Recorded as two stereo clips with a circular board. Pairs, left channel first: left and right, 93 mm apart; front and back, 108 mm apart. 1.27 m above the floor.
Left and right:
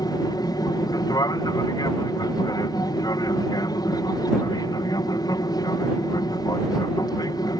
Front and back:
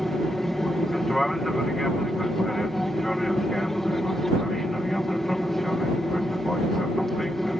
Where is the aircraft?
85° left.